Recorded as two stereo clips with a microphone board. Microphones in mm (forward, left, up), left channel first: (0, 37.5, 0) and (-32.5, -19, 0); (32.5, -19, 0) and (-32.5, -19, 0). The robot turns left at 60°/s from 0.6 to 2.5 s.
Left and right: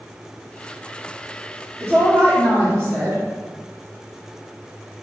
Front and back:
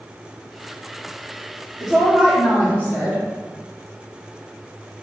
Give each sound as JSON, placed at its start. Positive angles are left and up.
{"t": 1.8, "sound": "a woman speaking", "azimuth_deg": -85, "distance_m": 1.1}